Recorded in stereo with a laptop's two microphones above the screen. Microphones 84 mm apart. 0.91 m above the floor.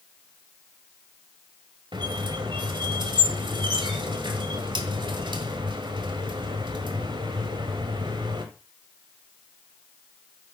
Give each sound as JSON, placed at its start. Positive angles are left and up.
{"t": 1.9, "sound": "a squeak", "side_deg": -70, "distance_m": 1.4}